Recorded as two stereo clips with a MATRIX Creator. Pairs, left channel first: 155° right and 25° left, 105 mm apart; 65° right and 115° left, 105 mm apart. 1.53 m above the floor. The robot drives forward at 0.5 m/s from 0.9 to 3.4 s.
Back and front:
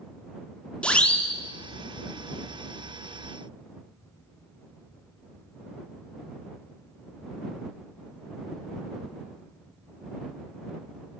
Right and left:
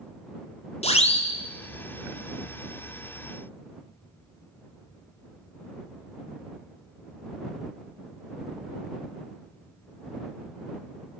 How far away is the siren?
About 3.5 m.